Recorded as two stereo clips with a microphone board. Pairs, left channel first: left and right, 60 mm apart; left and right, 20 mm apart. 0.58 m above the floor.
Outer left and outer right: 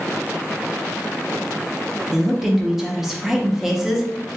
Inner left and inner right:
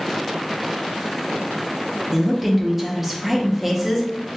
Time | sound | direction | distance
2.1 | a woman speaking | 5° right (ahead or behind) | 0.7 m